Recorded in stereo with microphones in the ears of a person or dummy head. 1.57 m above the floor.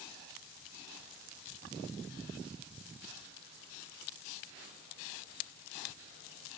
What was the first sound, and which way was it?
Only background noise.